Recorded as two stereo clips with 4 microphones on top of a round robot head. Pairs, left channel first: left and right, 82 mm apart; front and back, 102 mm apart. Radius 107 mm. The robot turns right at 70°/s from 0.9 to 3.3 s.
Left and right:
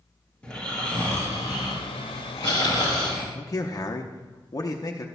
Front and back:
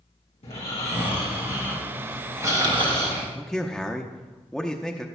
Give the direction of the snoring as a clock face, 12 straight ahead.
12 o'clock.